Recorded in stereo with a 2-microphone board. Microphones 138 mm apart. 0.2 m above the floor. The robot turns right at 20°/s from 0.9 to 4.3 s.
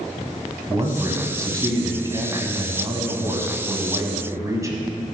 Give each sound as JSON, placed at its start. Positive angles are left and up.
{"t": 0.7, "sound": "a man speaking", "side_deg": -25, "distance_m": 1.2}